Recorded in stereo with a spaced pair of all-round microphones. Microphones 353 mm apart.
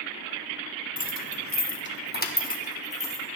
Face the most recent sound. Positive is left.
turn(degrees=15)  # may be behind; listen again after turning